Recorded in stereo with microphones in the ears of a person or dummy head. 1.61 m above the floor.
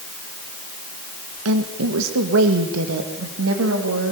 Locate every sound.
1.4 s a woman speaking: 80° right, 1.4 m